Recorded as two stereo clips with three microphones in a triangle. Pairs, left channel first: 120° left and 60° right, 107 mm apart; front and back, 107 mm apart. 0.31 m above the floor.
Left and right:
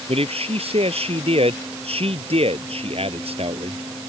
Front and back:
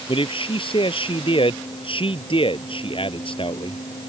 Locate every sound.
0.1 s a man speaking: 35° right